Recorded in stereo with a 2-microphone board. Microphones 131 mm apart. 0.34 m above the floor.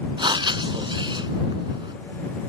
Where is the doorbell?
I don't hear a doorbell.